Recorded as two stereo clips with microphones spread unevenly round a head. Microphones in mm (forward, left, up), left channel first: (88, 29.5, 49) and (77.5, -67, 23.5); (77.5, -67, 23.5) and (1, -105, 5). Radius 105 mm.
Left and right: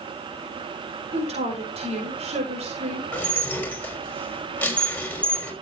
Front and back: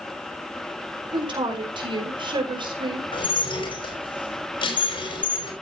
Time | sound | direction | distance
1.1 | a woman speaking | 130° right | 5 m
3.1 | dishes clattering | 10° left | 5 m